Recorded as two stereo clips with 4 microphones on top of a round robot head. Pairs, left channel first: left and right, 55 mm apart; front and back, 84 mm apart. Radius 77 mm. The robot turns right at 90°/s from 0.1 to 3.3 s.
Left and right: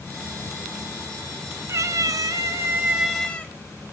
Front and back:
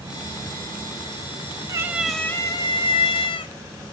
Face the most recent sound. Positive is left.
turn(degrees=20)